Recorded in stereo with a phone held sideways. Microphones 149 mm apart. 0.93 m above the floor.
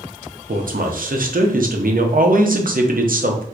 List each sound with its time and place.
0.5 s a man speaking: 70° right (ahead or behind), 0.7 m